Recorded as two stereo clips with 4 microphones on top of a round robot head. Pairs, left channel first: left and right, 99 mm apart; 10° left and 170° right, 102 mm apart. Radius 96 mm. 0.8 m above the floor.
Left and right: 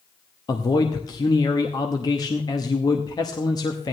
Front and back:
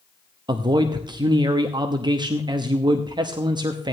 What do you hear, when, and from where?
0.5 s a man speaking: 140° left, 1.0 m